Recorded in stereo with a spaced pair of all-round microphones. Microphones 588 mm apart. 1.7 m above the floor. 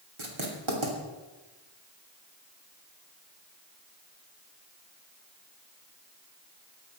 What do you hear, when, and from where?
0.2 s writing: 55° right (ahead or behind), 3 m